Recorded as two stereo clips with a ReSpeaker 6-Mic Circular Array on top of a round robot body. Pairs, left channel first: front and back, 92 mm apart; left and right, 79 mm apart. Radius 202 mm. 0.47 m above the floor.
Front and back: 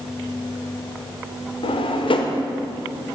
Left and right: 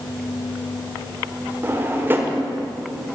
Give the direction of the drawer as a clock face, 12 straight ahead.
1 o'clock.